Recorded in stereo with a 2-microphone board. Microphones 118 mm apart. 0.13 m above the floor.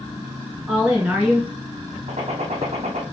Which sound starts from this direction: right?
A gunshot, at 2.1 s.